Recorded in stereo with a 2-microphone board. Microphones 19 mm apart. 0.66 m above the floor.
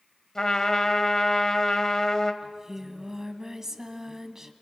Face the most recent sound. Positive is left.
turn(degrees=-25)  # may be behind; listen again after turning